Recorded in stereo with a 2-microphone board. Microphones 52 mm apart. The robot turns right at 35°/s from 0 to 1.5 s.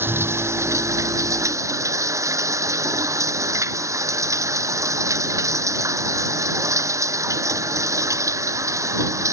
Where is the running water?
135° right; by 9.3 s 80° right.